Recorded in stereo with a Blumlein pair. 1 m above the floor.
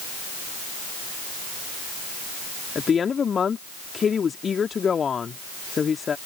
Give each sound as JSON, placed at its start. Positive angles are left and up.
{"t": 2.8, "sound": "a woman speaking", "azimuth_deg": 20}